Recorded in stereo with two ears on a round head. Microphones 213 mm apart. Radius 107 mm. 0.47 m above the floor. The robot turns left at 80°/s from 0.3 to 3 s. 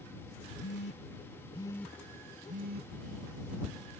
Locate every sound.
0.6 s a phone buzzing: 45° left (ahead or behind); by 2.9 s 45° right (ahead or behind)